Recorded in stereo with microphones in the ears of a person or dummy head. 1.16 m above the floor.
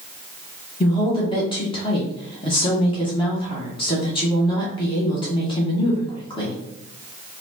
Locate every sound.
0.8 s a woman speaking: 20° left (ahead or behind), 1.2 m